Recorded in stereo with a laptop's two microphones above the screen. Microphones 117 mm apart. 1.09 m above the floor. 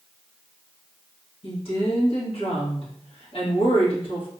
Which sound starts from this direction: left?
A woman speaking, at 1.4 s.